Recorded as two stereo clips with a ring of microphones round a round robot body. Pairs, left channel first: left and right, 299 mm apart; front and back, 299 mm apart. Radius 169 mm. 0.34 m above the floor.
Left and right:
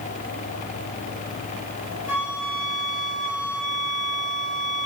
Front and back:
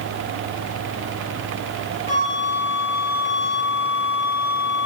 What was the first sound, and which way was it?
A flute, 115° left.